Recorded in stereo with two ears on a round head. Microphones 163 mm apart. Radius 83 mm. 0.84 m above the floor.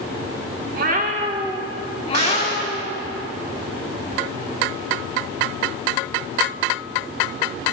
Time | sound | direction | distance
0.7 | a cat meowing | 55° right (ahead or behind) | 1.3 m
2.1 | a gunshot | 55° right (ahead or behind) | 6 m